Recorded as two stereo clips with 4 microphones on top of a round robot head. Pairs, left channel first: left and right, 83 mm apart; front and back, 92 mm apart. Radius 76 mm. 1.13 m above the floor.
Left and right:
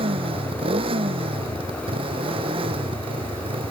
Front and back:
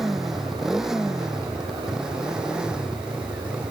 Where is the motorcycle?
95° right; by 3.7 s 100° right.